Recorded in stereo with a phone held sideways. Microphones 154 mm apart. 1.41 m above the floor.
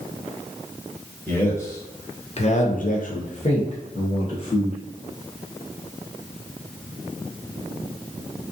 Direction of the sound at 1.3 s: 15° left (ahead or behind).